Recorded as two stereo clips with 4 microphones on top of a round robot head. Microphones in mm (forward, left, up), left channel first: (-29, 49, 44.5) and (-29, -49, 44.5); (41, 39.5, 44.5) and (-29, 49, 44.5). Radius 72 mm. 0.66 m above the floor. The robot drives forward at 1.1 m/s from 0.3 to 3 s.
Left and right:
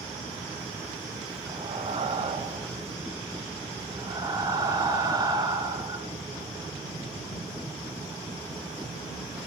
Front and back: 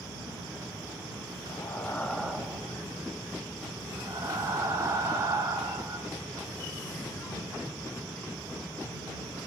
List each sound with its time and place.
1.5 s breathing: 50° right, 1.2 m; by 6.1 s 140° right, 1.4 m